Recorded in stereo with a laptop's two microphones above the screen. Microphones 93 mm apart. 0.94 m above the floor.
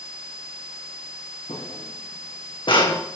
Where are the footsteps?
80° left, 4 m; by 3.0 s 55° left (ahead or behind), 2.5 m.